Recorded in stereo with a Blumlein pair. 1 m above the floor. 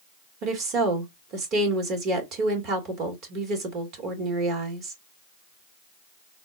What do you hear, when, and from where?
0.4 s a woman speaking: 35° right, 1.6 m